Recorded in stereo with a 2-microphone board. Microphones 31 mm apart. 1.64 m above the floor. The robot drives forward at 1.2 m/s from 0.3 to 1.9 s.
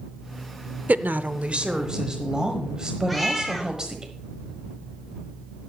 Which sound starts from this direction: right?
A woman speaking, at 0.9 s.